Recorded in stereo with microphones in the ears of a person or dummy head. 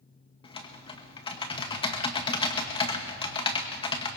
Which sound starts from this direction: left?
Typing on a keyboard, at 0.4 s.